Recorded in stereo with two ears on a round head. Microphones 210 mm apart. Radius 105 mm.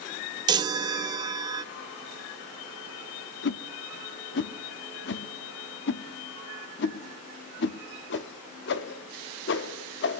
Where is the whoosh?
50° left (ahead or behind), 0.6 m.